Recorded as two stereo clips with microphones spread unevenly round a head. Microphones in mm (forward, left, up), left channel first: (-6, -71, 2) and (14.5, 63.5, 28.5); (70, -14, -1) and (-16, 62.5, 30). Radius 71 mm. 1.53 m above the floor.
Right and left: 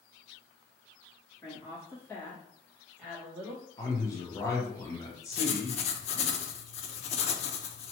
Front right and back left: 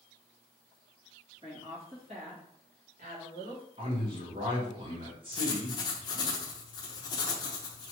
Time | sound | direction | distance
1.4 | a woman speaking | 165° right | 1.8 m
3.8 | a man speaking | 165° right | 1.1 m
5.3 | writing | 80° right | 0.5 m